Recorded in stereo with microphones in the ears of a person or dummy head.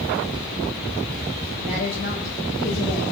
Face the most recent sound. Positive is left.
turn(degrees=45)  # may be behind; listen again after turning